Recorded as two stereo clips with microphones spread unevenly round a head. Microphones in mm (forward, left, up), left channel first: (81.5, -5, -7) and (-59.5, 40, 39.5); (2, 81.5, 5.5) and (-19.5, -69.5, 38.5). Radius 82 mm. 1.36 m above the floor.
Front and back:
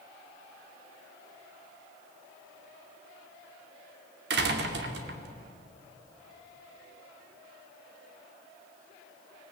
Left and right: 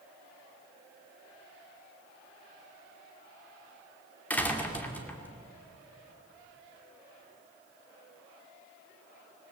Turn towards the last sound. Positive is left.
turn(degrees=165)